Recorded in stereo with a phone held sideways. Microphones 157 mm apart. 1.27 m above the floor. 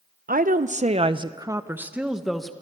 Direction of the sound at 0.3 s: 70° right (ahead or behind).